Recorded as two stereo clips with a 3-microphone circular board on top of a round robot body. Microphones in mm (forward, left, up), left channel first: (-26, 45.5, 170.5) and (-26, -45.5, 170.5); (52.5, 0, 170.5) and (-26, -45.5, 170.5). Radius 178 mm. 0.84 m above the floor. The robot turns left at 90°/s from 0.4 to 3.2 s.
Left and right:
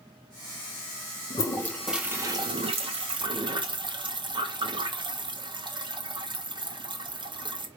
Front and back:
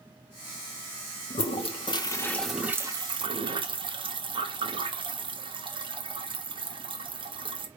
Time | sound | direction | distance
1.3 | a toilet flushing | 50° left | 1.2 m